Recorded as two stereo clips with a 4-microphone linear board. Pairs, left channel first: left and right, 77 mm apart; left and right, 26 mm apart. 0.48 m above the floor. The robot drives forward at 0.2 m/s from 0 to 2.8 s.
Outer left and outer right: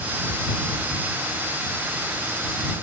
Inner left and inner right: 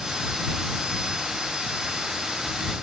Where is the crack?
No crack in this recording.